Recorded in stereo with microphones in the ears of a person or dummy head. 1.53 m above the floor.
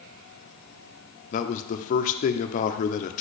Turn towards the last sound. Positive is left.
turn(degrees=40)  # may be behind; listen again after turning